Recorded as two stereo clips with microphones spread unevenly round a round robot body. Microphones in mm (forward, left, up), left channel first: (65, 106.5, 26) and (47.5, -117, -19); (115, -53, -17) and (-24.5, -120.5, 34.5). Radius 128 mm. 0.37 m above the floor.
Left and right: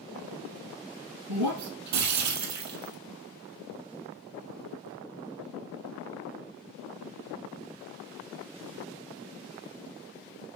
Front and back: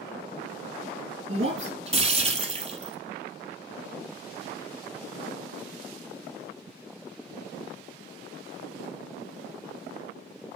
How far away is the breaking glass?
About 4 m.